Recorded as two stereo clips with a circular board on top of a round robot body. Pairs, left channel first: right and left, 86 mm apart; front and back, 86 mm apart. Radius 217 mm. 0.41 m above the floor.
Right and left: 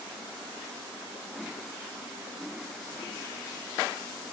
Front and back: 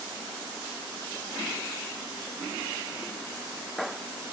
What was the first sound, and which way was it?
Only background noise.